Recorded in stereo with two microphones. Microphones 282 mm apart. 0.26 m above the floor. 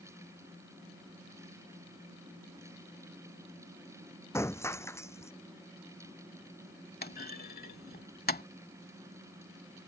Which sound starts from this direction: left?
A clunk, at 7.0 s.